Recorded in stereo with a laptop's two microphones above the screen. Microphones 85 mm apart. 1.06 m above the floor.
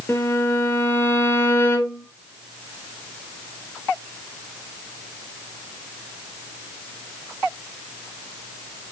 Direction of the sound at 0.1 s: 30° left (ahead or behind).